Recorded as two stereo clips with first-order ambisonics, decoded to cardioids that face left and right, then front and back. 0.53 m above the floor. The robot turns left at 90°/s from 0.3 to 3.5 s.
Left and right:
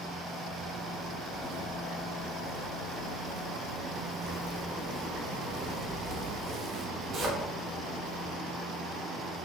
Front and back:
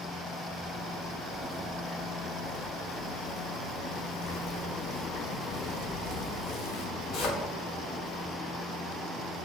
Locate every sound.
0.6 s a zipper: 135° right, 0.7 m; by 8.4 s 40° right, 0.7 m